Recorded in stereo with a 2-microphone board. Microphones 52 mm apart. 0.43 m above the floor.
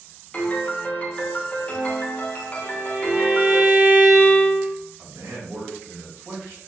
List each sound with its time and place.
0.3 s a piano: 30° left (ahead or behind), 0.7 m
2.6 s a violin: 40° right (ahead or behind), 1.7 m
5.0 s a man speaking: 55° right (ahead or behind), 1.6 m